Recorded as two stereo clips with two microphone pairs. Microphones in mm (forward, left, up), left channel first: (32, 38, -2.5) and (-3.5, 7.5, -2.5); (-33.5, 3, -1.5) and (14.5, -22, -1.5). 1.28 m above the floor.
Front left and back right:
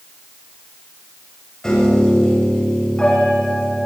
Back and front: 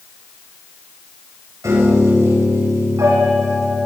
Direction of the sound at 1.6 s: 35° right.